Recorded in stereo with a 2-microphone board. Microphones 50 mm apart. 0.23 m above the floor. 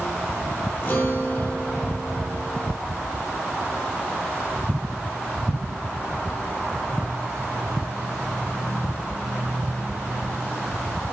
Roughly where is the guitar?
Left.